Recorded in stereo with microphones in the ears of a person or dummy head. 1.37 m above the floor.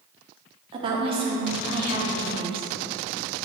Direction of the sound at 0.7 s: 30° right (ahead or behind).